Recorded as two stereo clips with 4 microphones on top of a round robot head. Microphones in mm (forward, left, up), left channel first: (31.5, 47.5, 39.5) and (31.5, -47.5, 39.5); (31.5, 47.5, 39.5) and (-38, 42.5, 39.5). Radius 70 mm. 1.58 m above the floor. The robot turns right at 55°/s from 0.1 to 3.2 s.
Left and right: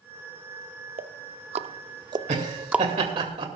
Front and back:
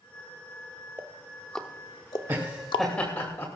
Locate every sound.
1.0 s ticking: 110° right, 0.6 m; by 2.9 s 5° right, 0.6 m
2.3 s laughter: 110° right, 2.5 m; by 3.5 s 60° right, 2.5 m